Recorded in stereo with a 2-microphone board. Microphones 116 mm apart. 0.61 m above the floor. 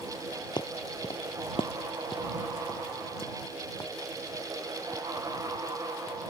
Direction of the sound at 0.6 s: 40° left (ahead or behind).